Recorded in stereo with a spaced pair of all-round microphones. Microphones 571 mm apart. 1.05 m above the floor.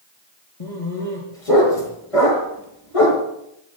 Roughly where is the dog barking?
Left.